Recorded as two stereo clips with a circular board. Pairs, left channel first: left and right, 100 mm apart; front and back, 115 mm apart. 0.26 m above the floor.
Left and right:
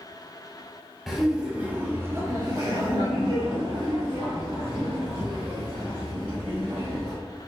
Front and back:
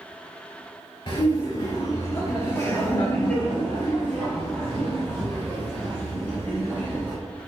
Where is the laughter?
Straight ahead, 1.2 m; by 7.1 s 100° right, 3 m.